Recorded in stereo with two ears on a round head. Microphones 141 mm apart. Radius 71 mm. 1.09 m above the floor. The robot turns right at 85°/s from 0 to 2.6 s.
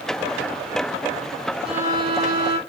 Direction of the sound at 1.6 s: 175° right.